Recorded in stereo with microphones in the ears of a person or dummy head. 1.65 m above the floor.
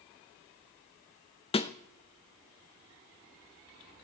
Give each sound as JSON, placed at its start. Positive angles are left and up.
{"t": 1.5, "sound": "a snare drum", "side_deg": 30, "distance_m": 0.5}